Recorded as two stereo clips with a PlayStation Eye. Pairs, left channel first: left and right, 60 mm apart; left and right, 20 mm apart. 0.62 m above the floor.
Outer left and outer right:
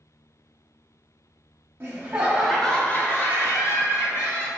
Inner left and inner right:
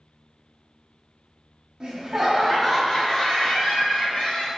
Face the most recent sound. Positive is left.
turn(degrees=60)  # may be behind; listen again after turning